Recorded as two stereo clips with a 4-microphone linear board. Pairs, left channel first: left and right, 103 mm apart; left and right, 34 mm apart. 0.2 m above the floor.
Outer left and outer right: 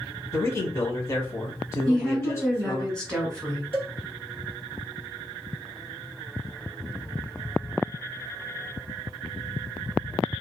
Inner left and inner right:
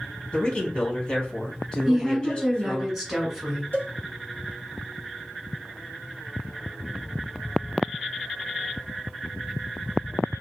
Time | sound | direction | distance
0.3 | a man speaking | 30° left (ahead or behind) | 1.2 m
1.9 | a woman speaking | 5° left (ahead or behind) | 1.4 m
3.7 | a cowbell | 70° left (ahead or behind) | 1.9 m